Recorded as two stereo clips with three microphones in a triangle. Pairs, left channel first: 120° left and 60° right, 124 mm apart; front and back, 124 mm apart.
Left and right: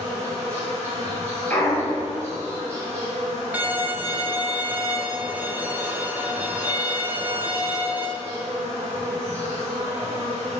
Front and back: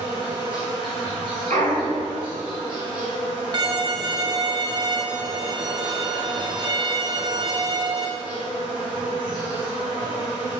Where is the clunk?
165° right, 2 m.